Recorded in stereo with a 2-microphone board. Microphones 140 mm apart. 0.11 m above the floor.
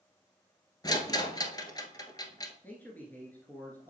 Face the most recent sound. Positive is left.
turn(degrees=15)  # may be behind; listen again after turning